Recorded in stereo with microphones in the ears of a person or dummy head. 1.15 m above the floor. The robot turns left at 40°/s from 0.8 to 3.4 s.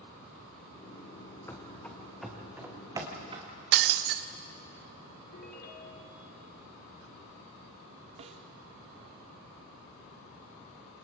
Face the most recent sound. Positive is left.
turn(degrees=-35)  # may be behind; listen again after turning